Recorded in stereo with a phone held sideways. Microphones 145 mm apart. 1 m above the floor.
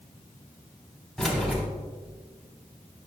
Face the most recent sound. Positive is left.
turn(degrees=0)  # may be behind; listen again after turning